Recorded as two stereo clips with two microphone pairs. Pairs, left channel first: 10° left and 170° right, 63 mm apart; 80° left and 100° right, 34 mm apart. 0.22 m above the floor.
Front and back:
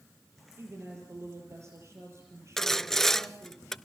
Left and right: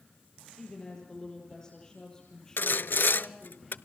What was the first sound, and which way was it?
A woman speaking, 150° left.